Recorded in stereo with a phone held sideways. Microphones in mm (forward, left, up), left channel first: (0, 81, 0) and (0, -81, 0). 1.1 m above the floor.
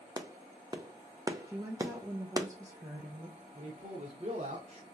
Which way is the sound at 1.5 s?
20° right (ahead or behind).